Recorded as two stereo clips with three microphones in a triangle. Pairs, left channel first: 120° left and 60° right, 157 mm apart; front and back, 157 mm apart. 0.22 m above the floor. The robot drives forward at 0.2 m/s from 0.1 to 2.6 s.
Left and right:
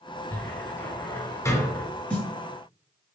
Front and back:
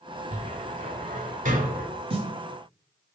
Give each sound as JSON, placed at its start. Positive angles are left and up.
{"t": 0.3, "sound": "a cupboard door", "azimuth_deg": -165, "distance_m": 0.6}
{"t": 2.1, "sound": "a snare drum", "azimuth_deg": -165, "distance_m": 1.4}